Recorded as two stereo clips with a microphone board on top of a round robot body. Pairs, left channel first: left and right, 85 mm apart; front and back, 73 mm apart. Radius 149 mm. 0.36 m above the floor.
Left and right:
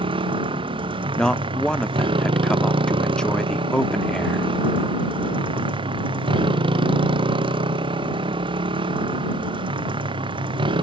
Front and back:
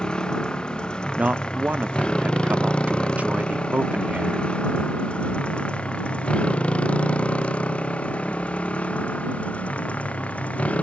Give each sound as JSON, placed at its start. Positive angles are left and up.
{"t": 0.0, "sound": "a motorcycle", "azimuth_deg": -80}
{"t": 1.2, "sound": "a man speaking", "azimuth_deg": 155}